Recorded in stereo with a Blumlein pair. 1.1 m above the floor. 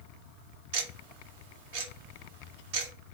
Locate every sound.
0.7 s ticking: 50° right, 0.7 m